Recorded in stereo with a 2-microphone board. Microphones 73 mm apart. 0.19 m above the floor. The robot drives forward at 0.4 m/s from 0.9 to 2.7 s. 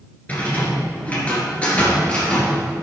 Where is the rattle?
20° left (ahead or behind), 2 m; by 2.8 s 15° left (ahead or behind), 2.5 m.